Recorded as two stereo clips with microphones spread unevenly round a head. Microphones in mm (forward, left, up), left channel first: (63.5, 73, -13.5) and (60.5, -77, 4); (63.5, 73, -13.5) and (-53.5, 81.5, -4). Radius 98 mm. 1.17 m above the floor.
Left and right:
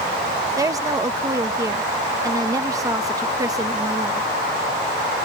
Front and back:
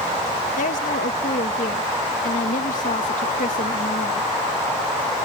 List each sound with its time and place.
0.6 s a woman speaking: 20° right